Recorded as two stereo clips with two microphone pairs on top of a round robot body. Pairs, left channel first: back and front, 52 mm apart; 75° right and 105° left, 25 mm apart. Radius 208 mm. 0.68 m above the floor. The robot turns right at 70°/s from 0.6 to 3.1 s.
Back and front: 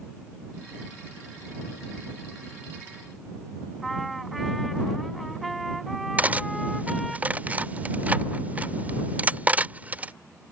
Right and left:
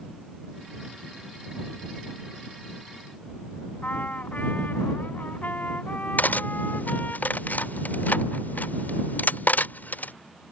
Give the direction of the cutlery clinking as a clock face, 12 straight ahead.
2 o'clock.